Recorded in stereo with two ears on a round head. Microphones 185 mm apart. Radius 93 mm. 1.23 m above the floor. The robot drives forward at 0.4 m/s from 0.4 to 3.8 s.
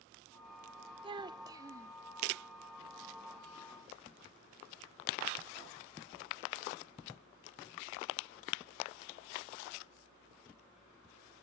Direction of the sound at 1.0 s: 25° right (ahead or behind).